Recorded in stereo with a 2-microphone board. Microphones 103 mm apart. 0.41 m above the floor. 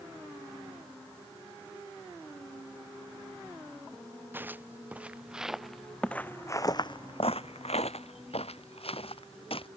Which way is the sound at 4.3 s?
20° right (ahead or behind).